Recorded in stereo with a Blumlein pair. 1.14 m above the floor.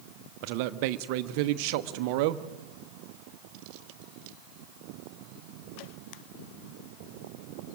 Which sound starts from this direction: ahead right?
A man speaking, at 0.4 s.